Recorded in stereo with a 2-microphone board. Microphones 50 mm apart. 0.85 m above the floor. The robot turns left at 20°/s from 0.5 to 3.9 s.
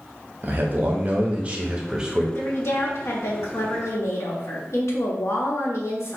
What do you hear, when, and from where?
0.4 s a man speaking: 130° right, 0.9 m; by 2.2 s 165° right, 0.9 m
2.4 s a woman speaking: 120° left, 1.3 m; by 6.2 s 90° left, 1.3 m